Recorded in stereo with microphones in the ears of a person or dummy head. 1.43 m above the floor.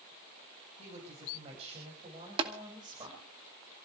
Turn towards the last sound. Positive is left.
turn(degrees=-30)  # may be behind; listen again after turning